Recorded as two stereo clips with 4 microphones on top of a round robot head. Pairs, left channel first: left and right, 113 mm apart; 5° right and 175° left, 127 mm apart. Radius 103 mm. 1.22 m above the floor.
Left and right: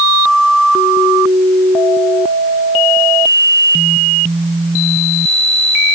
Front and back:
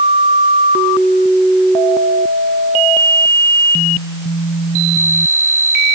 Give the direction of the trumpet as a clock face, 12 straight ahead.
No trumpet in this recording.